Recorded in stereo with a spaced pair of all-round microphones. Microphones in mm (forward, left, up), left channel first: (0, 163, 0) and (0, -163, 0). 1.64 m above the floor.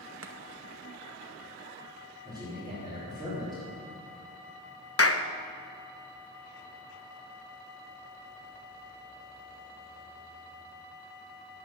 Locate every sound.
0.2 s chopping: 40° right (ahead or behind), 0.9 m
2.2 s a man speaking: 10° right (ahead or behind), 5 m
5.0 s a clap: 45° left (ahead or behind), 0.7 m